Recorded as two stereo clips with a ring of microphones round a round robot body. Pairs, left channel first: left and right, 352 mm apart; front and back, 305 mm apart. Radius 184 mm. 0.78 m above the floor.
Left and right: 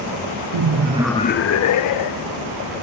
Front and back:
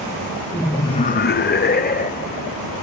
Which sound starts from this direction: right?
Laughter, at 0.5 s.